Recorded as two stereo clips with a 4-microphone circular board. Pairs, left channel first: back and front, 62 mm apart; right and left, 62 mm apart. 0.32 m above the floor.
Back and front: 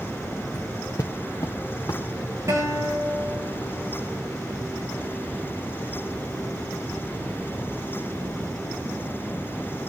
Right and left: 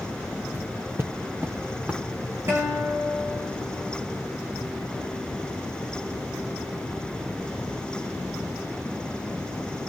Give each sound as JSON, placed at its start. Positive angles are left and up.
{"t": 0.5, "sound": "footsteps", "azimuth_deg": 130, "distance_m": 2.0}
{"t": 2.5, "sound": "a guitar", "azimuth_deg": 40, "distance_m": 10.0}